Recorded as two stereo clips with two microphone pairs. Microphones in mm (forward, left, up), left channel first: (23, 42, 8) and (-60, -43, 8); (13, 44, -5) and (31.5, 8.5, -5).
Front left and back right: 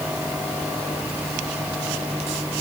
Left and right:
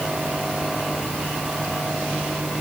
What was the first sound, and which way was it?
Only background noise.